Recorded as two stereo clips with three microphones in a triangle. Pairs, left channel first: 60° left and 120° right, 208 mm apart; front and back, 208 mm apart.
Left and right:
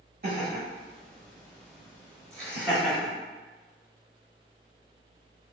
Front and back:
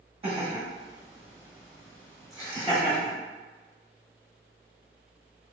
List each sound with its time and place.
0.2 s laughter: 125° right, 1.7 m; by 3.1 s 25° right, 1.3 m